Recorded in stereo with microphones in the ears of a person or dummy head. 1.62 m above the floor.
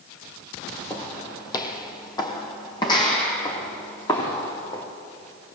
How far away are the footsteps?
About 2.5 m.